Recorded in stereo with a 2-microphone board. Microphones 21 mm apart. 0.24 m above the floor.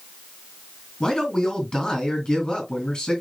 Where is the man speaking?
40° left (ahead or behind), 3 m.